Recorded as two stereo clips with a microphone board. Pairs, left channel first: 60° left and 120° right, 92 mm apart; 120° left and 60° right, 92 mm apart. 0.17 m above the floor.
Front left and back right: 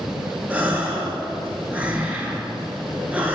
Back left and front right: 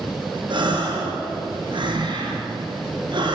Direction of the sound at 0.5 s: 50° right.